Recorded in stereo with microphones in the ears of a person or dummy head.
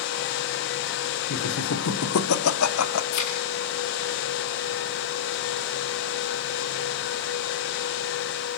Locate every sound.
1.3 s laughter: 85° left, 3 m
3.1 s a thud: 80° left, 7 m